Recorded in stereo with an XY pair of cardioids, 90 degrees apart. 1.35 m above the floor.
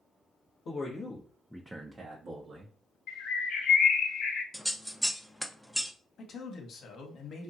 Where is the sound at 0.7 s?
55° left, 0.9 m; by 2.7 s 65° right, 1.1 m.